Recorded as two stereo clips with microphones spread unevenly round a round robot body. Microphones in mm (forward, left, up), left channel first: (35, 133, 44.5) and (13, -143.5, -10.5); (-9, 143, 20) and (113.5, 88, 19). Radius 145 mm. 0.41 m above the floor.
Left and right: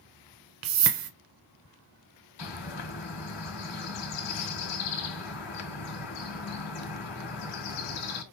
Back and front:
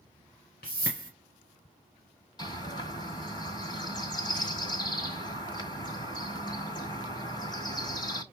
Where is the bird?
95° left, 1.7 m.